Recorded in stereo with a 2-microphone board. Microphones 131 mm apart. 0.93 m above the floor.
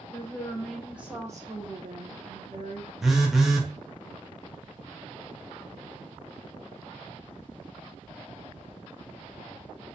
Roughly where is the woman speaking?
Centre.